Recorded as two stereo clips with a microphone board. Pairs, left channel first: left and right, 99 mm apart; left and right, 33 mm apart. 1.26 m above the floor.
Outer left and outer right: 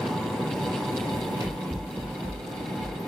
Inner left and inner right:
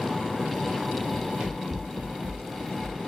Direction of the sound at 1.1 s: 30° right (ahead or behind).